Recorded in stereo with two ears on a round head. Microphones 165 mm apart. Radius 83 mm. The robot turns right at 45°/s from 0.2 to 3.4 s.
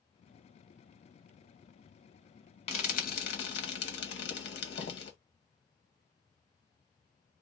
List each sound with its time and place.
2.7 s frying: 35° left (ahead or behind), 1.4 m; by 5.1 s 65° left (ahead or behind), 1.4 m